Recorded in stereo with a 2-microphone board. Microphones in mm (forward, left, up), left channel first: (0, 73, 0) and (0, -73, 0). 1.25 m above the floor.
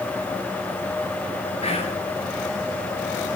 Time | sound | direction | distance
1.6 | whispering | 45° left (ahead or behind) | 2 m